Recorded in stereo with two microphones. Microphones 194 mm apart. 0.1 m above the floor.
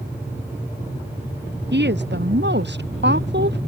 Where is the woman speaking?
65° right (ahead or behind).